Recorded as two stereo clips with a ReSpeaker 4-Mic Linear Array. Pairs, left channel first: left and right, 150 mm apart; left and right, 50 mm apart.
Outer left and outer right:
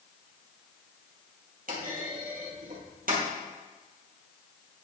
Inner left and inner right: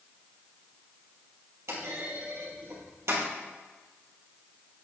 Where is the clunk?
75° right (ahead or behind), 2.5 m.